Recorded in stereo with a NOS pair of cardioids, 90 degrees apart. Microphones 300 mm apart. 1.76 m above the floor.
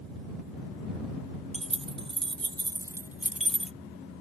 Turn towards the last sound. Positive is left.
turn(degrees=5)